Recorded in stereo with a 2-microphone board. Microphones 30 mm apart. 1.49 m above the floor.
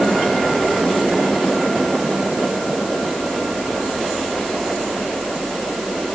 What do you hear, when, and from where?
Only background noise.